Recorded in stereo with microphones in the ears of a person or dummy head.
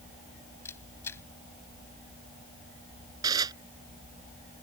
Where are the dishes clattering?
20° right (ahead or behind).